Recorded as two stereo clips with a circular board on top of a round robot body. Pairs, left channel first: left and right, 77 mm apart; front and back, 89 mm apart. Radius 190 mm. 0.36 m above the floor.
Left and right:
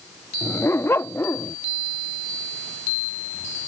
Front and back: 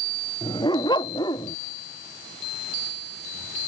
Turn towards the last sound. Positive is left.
turn(degrees=35)